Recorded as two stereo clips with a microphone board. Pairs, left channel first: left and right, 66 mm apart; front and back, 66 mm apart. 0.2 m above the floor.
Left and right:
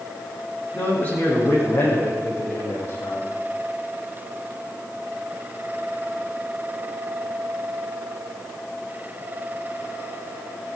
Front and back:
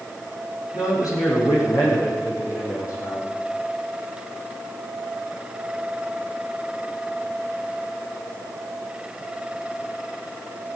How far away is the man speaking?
About 9.5 m.